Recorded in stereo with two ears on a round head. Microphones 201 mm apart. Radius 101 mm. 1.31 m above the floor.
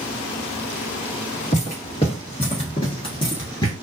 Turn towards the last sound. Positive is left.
turn(degrees=15)  # may be behind; listen again after turning